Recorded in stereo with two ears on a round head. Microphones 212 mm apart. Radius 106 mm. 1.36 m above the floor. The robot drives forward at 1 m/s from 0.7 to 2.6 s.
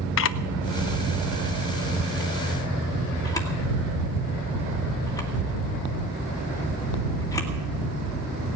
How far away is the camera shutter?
About 0.7 m.